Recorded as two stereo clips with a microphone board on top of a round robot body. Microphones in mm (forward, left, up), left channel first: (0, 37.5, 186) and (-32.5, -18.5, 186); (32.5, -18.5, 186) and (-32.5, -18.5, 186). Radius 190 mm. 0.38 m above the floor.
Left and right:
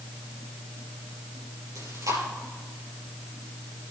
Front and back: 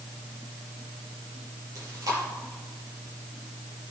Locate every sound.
1.8 s chewing: 150° right, 5.5 m